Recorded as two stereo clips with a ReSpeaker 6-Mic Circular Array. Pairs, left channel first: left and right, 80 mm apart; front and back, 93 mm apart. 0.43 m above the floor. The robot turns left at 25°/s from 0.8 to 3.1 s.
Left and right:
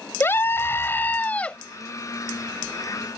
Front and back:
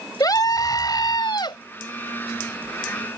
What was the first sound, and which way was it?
A scream, 35° left.